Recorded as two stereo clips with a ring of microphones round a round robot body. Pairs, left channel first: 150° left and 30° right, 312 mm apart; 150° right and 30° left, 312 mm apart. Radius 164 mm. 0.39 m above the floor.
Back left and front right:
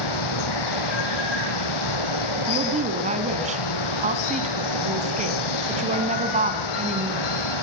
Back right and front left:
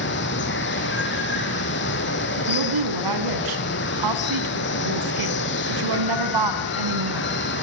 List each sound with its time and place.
0.0 s running water: 155° left, 3 m
2.4 s a woman speaking: 40° left, 3.5 m